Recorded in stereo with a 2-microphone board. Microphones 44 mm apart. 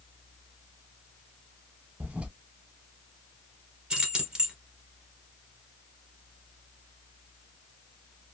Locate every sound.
2.0 s a toilet flushing: 30° right (ahead or behind), 0.5 m
3.9 s keys jangling: 15° right (ahead or behind), 1.5 m